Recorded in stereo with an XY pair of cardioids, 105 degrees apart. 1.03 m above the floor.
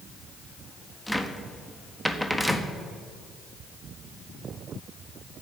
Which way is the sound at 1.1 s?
5° left.